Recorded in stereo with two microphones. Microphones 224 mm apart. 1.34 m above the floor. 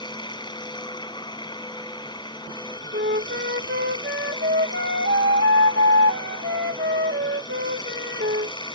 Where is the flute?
55° right (ahead or behind).